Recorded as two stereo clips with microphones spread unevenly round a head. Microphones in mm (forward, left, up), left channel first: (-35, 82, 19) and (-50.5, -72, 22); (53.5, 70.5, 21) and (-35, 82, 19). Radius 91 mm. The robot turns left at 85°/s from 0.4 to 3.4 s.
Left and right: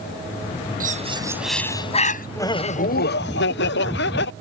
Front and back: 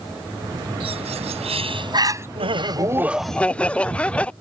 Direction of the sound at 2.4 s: 160° left.